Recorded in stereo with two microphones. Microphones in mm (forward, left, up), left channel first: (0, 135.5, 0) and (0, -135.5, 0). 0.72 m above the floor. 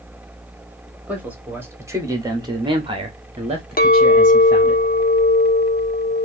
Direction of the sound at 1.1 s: 5° right (ahead or behind).